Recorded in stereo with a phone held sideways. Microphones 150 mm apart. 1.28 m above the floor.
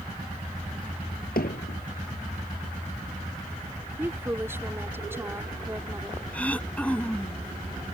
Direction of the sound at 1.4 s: 85° left.